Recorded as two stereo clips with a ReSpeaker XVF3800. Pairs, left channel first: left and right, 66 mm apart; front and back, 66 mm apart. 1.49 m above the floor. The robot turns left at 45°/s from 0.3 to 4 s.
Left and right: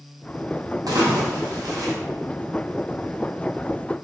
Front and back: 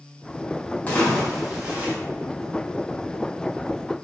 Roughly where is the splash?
Ahead right.